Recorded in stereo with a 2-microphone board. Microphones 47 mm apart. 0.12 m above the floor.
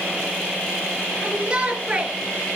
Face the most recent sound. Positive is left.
turn(degrees=-25)  # may be behind; listen again after turning